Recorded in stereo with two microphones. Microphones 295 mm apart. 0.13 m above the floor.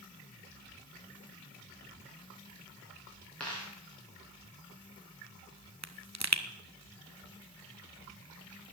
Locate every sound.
3.4 s a dropped coin: 5° left (ahead or behind), 6 m
5.8 s a pop: 65° right (ahead or behind), 0.9 m